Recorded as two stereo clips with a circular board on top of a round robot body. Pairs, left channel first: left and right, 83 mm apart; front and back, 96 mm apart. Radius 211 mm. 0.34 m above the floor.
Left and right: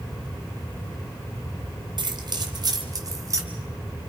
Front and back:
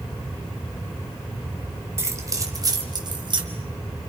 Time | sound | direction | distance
2.0 | keys jangling | 115° right | 2 m